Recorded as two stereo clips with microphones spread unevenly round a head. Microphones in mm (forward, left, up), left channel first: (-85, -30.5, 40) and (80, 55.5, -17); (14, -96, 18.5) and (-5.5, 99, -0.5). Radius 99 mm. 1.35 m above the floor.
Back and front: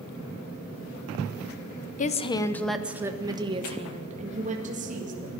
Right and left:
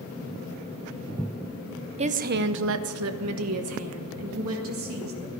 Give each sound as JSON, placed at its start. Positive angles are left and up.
{"t": 2.0, "sound": "a woman speaking", "azimuth_deg": 155, "distance_m": 0.8}